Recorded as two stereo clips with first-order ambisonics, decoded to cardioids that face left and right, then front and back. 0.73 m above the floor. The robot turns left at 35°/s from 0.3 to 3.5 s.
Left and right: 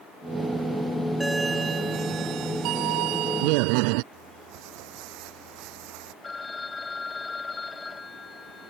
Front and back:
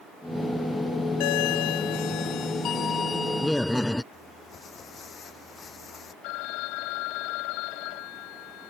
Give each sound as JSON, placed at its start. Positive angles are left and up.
{"t": 1.2, "sound": "a doorbell", "azimuth_deg": -5}
{"t": 4.1, "sound": "crumpling", "azimuth_deg": -70}
{"t": 6.2, "sound": "a phone ringing", "azimuth_deg": 10}